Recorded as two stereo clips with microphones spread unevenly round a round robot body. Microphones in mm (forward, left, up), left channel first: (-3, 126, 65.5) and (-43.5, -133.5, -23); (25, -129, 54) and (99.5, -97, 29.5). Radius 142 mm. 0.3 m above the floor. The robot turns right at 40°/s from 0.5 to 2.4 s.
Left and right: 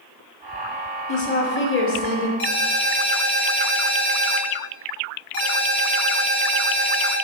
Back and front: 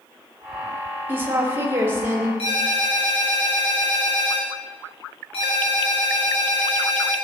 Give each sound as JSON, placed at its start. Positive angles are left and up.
{"t": 1.1, "sound": "a woman speaking", "azimuth_deg": 5, "distance_m": 1.4}
{"t": 2.4, "sound": "a ringtone", "azimuth_deg": 175, "distance_m": 3.0}